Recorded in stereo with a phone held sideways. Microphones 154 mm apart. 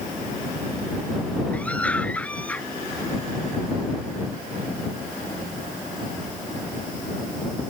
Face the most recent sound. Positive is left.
turn(degrees=10)  # may be behind; listen again after turning